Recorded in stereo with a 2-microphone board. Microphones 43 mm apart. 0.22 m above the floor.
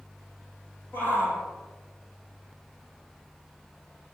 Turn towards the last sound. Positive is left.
turn(degrees=50)  # may be behind; listen again after turning